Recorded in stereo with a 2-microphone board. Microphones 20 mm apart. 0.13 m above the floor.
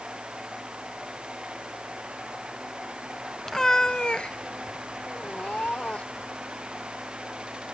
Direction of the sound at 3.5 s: 20° left (ahead or behind).